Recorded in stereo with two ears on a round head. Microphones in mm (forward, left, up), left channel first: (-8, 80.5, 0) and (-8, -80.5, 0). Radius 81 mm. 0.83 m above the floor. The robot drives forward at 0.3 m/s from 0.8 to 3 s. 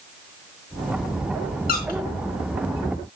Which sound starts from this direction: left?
A squeak, at 1.7 s.